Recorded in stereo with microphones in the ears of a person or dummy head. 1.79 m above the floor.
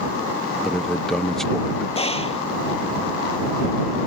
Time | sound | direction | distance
0.6 | a man speaking | 5° left (ahead or behind) | ?
1.9 | a gunshot | 35° left (ahead or behind) | ?